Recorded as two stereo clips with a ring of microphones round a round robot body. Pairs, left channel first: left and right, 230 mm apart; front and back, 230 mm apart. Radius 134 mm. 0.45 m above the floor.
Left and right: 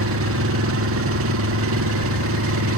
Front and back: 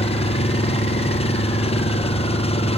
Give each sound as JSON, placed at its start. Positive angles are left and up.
{"t": 0.0, "sound": "an engine running", "azimuth_deg": -65}